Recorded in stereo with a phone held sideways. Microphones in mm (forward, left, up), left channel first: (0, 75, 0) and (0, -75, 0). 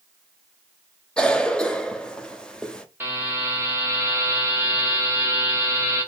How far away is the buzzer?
About 1.7 m.